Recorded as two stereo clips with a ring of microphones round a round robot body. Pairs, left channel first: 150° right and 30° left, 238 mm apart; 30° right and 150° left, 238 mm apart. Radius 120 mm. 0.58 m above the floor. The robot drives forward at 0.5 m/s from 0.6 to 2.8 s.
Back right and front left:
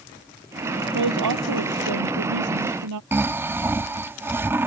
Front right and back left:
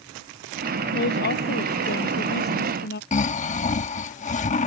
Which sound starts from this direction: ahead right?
Snoring, at 3.1 s.